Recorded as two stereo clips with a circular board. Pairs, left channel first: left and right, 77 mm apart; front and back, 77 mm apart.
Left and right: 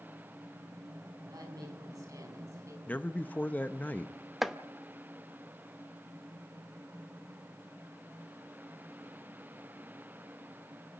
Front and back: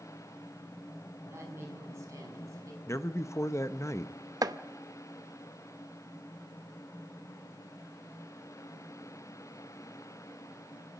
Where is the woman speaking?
125° right, 6.5 m; by 2.8 s 135° right, 6.5 m.